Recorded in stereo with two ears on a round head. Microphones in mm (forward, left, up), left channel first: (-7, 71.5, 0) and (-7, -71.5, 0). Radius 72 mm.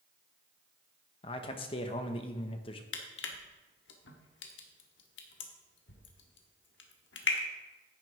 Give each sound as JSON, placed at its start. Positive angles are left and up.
{"t": 1.2, "sound": "a man speaking", "side_deg": 35, "distance_m": 1.0}
{"t": 2.9, "sound": "crushing", "side_deg": 85, "distance_m": 1.4}